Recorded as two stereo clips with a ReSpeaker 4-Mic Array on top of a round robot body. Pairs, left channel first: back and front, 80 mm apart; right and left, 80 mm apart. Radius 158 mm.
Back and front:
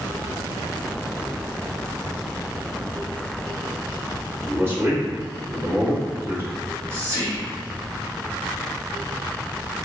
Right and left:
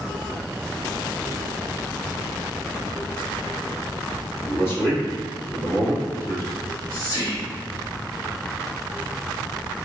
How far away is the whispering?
About 2.0 m.